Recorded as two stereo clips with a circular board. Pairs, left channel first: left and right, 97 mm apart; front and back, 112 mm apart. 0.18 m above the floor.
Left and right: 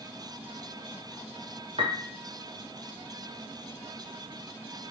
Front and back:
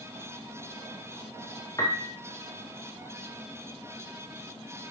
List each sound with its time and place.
1.8 s a piano: 60° right, 2.5 m